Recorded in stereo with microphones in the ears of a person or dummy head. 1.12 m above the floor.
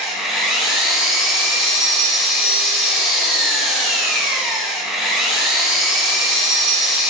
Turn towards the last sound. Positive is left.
turn(degrees=0)  # may be behind; listen again after turning